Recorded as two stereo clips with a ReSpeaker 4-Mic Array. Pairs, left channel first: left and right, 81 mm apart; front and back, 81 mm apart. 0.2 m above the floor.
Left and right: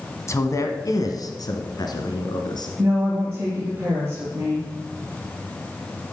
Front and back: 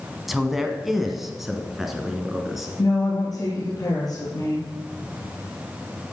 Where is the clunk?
No clunk in this recording.